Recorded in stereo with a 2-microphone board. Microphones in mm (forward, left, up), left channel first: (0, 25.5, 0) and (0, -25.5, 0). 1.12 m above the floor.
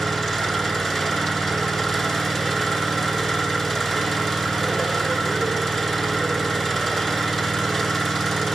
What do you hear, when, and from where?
0.0 s an engine running: 5° left (ahead or behind), 7 m